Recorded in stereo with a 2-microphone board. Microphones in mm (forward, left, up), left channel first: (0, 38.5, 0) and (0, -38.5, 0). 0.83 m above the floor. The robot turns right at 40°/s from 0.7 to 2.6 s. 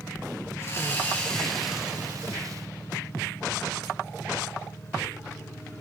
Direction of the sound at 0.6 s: 140° left.